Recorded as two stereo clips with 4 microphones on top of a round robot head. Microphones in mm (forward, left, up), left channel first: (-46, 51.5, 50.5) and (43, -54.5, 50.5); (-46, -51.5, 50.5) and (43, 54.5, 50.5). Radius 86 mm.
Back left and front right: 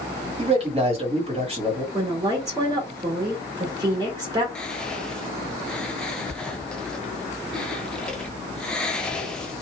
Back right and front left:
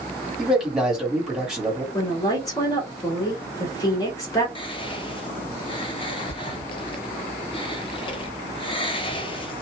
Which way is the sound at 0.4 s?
35° right.